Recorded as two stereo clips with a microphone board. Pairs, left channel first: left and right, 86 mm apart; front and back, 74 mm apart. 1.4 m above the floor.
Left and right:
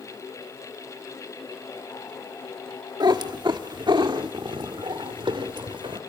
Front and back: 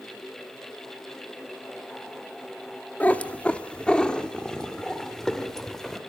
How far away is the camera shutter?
I don't hear a camera shutter.